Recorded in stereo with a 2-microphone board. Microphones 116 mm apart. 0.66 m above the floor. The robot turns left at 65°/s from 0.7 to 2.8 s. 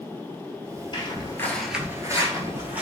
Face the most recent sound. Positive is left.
turn(degrees=-10)  # may be behind; listen again after turning